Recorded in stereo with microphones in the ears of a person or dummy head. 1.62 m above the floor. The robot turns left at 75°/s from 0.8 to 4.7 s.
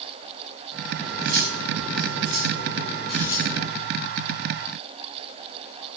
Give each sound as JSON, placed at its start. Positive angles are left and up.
{"t": 1.0, "sound": "cutlery clinking", "azimuth_deg": -20, "distance_m": 7.5}